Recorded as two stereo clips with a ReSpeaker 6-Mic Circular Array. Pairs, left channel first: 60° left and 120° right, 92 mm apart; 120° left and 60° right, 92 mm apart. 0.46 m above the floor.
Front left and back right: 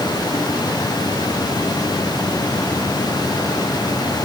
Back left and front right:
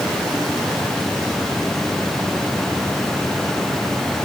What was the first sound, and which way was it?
Only background noise.